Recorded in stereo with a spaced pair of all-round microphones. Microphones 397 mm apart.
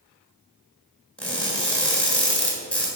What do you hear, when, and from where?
1.2 s crushing: 5° left (ahead or behind), 3 m